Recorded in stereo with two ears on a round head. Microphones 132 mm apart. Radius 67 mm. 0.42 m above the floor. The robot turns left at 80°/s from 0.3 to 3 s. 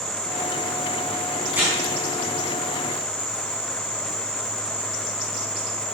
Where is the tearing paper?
5° right (ahead or behind), 4 m; by 1.8 s 25° right (ahead or behind), 4 m.